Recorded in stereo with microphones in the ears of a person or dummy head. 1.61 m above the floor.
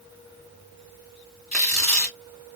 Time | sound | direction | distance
1.5 | tearing paper | centre (ahead or behind) | 2.5 m